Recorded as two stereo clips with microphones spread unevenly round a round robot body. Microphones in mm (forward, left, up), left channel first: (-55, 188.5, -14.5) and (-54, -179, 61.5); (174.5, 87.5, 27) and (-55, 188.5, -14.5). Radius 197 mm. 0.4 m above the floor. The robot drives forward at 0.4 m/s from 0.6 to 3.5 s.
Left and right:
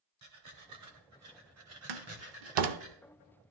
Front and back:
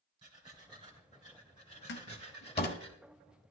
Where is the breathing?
135° right, 2.5 m; by 2.9 s 150° right, 3 m.